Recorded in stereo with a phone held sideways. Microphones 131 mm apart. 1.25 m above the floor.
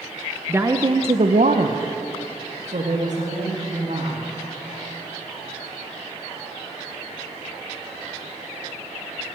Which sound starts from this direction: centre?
A woman speaking, at 0.5 s.